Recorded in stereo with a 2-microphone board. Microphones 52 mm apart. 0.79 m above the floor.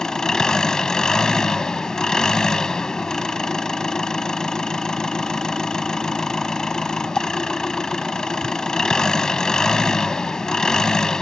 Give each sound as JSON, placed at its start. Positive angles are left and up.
{"t": 0.0, "sound": "an engine running", "side_deg": 10}